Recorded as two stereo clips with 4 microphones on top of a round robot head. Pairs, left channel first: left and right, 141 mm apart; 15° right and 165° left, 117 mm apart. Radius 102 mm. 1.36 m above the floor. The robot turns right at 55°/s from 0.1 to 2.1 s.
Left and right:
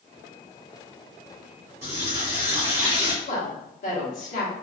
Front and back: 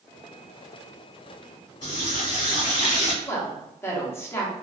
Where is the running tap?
45° right, 1.4 m; by 3.1 s 30° right, 1.4 m.